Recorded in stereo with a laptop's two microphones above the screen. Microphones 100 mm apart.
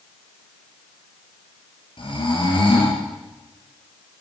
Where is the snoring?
55° left (ahead or behind), 7.5 m.